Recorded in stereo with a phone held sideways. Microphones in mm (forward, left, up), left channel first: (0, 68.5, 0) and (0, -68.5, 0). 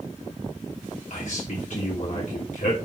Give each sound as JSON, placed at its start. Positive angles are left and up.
{"t": 1.1, "sound": "a man speaking", "side_deg": 65, "distance_m": 3.0}